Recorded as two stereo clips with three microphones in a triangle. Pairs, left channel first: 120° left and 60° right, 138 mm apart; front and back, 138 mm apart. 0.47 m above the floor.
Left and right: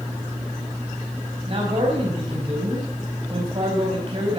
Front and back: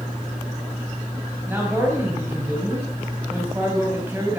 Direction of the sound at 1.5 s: 105° right.